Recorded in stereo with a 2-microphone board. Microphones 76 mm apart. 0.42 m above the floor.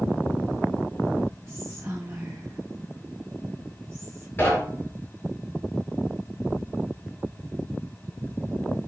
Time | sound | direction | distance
1.5 | whispering | 15° right (ahead or behind) | 4 m
4.4 | knocking | 25° left (ahead or behind) | 6.5 m